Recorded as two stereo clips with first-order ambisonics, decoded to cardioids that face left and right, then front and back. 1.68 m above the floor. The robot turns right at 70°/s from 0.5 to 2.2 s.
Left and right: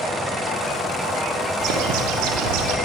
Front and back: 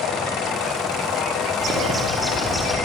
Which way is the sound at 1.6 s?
130° right.